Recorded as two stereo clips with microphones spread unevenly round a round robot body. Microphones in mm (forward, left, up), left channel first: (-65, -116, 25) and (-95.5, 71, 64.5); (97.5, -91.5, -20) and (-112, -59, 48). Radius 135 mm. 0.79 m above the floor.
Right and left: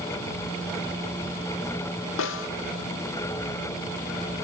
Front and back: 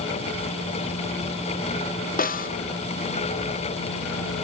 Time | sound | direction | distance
2.2 | a snare drum | 60° right | 1.2 m